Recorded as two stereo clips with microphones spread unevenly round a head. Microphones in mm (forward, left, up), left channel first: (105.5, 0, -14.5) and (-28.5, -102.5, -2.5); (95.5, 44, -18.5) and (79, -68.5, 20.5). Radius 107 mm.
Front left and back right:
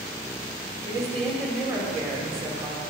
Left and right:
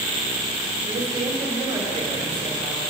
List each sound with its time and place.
0.9 s a woman speaking: 85° right, 2.5 m